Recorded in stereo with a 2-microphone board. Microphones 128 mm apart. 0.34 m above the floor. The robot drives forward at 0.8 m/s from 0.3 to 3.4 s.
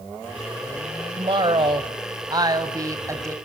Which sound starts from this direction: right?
A woman speaking, at 1.2 s.